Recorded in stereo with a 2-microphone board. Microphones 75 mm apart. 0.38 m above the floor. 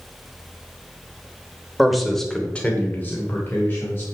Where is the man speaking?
5° right (ahead or behind), 1.8 m; by 4.1 s 30° left (ahead or behind), 3 m.